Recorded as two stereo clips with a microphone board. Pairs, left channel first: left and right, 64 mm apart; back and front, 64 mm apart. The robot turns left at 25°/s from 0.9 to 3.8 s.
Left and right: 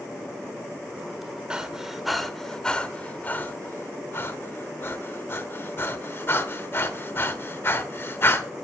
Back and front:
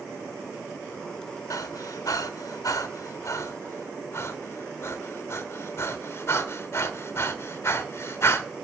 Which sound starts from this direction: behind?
Breathing, at 1.5 s.